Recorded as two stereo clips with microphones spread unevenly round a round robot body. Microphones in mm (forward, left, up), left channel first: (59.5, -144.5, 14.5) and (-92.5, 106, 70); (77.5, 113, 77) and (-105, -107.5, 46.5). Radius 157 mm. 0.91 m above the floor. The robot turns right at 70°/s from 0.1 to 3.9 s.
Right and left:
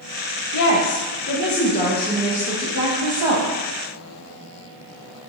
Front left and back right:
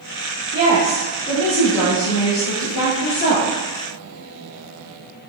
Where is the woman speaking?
80° right, 0.7 m; by 3.5 s 125° left, 0.7 m.